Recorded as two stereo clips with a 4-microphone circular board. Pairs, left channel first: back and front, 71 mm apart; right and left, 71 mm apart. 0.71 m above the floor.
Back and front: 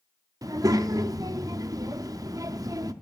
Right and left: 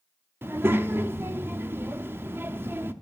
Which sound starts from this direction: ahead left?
A child speaking, at 0.4 s.